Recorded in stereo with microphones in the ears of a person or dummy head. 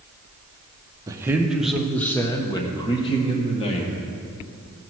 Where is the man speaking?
20° right (ahead or behind), 1.0 m; by 3.9 s 30° left (ahead or behind), 2 m.